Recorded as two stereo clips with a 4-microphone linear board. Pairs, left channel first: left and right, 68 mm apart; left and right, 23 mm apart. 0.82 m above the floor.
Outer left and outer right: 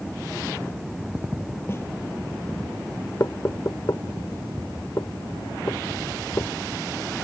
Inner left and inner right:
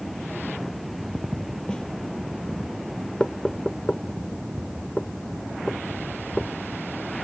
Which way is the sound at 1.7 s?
40° left (ahead or behind).